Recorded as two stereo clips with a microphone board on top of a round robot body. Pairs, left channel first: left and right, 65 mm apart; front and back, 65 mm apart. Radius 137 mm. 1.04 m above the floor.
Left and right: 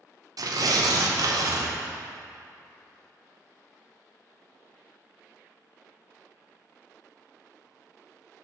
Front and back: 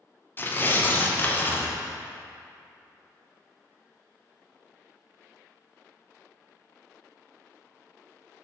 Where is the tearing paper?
60° right, 0.6 m.